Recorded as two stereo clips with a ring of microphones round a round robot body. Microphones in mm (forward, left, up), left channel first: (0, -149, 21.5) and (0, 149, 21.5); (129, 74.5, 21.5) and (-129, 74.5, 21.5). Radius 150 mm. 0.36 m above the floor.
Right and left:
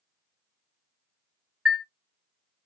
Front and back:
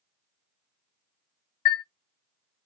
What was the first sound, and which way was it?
A chime, straight ahead.